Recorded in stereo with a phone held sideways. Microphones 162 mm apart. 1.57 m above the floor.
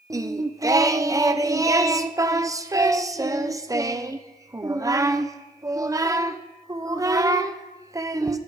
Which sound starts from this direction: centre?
Singing, at 0.1 s.